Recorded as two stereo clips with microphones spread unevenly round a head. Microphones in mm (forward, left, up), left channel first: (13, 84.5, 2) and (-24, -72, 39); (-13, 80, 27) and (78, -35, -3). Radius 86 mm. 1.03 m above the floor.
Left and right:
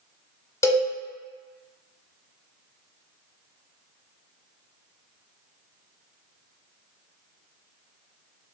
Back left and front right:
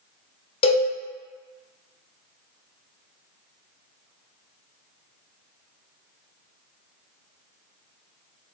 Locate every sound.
0.6 s a cowbell: 155° left, 0.7 m